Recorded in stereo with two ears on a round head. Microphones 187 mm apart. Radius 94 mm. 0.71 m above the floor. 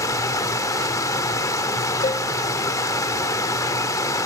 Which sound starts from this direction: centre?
Running water, at 0.0 s.